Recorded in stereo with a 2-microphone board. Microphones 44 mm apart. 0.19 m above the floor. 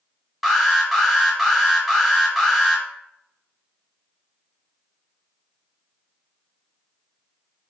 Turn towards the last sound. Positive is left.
turn(degrees=-5)  # may be behind; listen again after turning